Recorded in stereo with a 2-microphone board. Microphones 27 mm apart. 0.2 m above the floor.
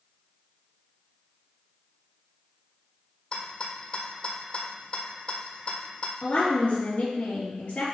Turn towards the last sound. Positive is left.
turn(degrees=45)  # may be behind; listen again after turning